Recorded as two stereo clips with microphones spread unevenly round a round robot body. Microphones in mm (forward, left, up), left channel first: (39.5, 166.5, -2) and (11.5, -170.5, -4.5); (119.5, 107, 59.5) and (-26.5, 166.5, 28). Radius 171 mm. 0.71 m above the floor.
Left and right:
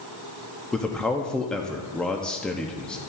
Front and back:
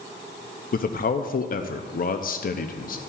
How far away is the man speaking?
About 0.5 m.